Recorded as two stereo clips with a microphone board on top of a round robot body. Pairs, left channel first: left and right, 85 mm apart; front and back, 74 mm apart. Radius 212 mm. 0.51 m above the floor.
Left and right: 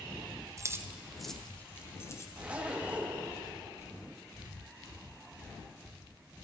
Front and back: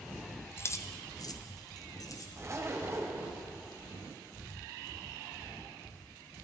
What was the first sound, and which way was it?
Keys jangling, 50° right.